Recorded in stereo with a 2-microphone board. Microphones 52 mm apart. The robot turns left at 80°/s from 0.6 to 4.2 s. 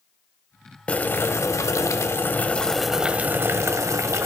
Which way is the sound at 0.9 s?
155° left.